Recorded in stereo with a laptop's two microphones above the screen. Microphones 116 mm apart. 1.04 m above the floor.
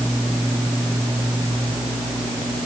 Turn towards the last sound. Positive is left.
No sound to turn to.